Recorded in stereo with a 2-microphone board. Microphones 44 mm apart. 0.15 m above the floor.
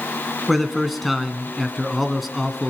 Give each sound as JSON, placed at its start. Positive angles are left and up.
{"t": 0.5, "sound": "a man speaking", "side_deg": 0, "distance_m": 1.8}